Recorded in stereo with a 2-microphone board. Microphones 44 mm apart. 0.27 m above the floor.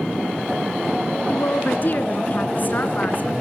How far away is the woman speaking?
About 2.5 m.